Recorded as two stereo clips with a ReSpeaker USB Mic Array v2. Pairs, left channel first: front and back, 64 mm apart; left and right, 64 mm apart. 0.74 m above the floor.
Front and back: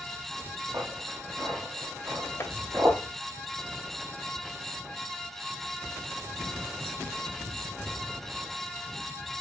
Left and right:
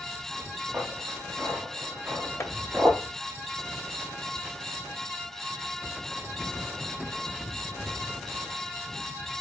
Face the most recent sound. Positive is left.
turn(degrees=50)